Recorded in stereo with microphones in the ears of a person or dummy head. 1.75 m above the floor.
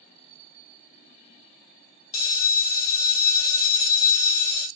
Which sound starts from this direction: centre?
A bell, at 2.1 s.